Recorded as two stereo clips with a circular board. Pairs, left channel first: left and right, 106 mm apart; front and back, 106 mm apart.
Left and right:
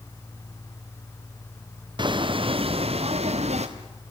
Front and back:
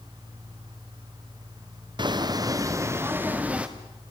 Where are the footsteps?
135° right, 2 m; by 3.7 s 100° right, 2.5 m.